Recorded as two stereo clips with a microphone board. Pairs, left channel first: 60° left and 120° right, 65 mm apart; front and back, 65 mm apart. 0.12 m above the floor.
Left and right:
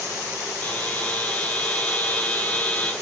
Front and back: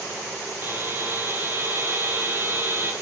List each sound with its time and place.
0.6 s a buzzer: 125° left, 1.7 m